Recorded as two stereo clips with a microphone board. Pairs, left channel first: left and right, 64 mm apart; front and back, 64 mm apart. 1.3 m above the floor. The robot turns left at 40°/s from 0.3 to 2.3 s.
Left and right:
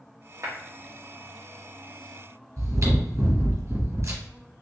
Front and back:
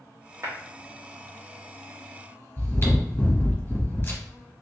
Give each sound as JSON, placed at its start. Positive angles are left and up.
{"t": 0.4, "sound": "a clap", "azimuth_deg": -135, "distance_m": 1.6}
{"t": 2.6, "sound": "chewing", "azimuth_deg": -55, "distance_m": 1.4}